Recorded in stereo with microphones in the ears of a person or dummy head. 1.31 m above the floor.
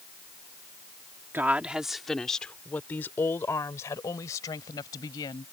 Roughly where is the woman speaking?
Centre.